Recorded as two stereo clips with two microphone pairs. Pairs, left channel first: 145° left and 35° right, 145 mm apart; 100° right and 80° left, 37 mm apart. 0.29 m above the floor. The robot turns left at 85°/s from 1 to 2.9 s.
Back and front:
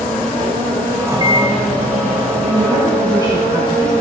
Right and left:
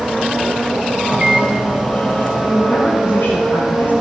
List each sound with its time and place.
1.1 s a microwave: 35° left, 1.6 m; by 2.3 s 70° right, 1.6 m
2.4 s a woman speaking: 60° right, 6.5 m; by 3.9 s 100° right, 6.5 m